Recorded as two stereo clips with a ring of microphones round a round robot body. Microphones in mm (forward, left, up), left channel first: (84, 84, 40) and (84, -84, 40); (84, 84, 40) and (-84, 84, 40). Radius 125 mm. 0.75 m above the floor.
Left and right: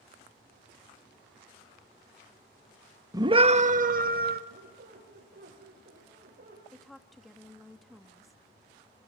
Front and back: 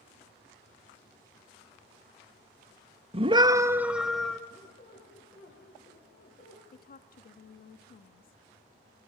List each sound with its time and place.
3.1 s a scream: 150° right, 0.8 m; by 4.4 s 85° right, 1.3 m
4.5 s a squeak: 60° right, 8.5 m
6.7 s a woman speaking: straight ahead, 1.4 m